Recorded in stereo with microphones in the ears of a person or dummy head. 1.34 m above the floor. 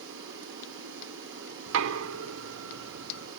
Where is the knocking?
70° right (ahead or behind), 0.6 m.